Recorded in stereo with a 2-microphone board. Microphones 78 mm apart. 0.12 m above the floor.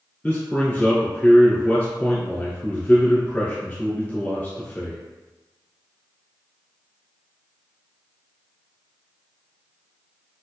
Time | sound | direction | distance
0.2 | a man speaking | 15° left (ahead or behind) | 1.5 m